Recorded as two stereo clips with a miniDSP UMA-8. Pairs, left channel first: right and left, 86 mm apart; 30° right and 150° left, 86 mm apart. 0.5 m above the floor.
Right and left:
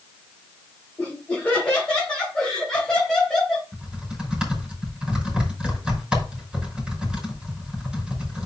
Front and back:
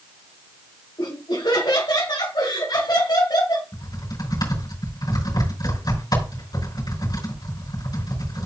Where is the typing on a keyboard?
10° left, 5.5 m.